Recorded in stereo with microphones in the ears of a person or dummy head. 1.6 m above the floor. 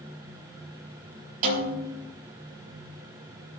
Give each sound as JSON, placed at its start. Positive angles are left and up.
{"t": 1.4, "sound": "a snare drum", "side_deg": -45, "distance_m": 4.5}